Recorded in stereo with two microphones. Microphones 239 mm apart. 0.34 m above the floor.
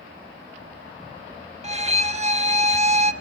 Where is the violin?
30° right (ahead or behind), 0.5 m.